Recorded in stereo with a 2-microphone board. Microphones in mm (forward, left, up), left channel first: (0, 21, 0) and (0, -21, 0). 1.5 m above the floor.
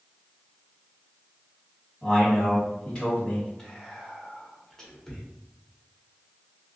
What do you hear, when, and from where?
2.0 s a man speaking: 10° left (ahead or behind), 1.7 m
3.6 s whispering: 15° left (ahead or behind), 1.5 m